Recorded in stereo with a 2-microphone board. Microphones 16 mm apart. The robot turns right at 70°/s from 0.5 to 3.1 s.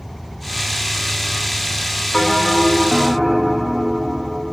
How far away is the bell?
About 1.6 m.